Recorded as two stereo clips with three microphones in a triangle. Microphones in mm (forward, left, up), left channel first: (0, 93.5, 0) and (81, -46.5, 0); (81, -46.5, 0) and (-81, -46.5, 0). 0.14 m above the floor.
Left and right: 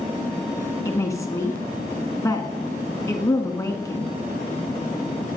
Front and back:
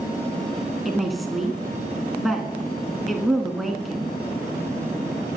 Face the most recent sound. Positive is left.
turn(degrees=90)